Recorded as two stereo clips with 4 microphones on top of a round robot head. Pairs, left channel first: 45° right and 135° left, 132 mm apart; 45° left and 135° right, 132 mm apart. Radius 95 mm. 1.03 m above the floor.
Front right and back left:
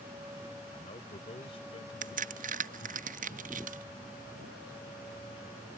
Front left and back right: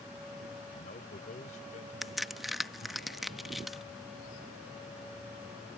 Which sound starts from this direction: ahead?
A man speaking, at 0.7 s.